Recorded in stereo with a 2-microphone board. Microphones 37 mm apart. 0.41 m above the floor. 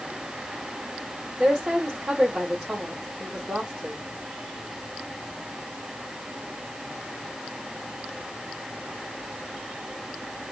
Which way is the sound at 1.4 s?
20° right (ahead or behind).